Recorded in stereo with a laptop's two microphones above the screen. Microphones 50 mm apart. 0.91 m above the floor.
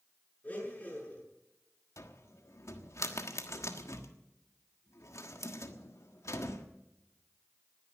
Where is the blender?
30° left (ahead or behind), 8 m.